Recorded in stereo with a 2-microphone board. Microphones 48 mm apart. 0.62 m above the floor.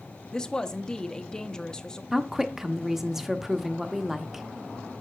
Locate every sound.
0.3 s a woman speaking: 15° left (ahead or behind), 0.5 m
2.1 s a woman speaking: 5° right (ahead or behind), 0.6 m